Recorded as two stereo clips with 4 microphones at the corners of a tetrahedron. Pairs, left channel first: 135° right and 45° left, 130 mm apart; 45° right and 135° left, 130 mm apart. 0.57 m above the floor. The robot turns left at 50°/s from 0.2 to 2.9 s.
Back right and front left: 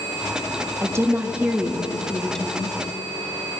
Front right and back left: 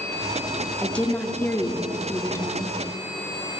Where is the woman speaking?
25° left, 0.7 m; by 2.8 s 75° right, 0.7 m.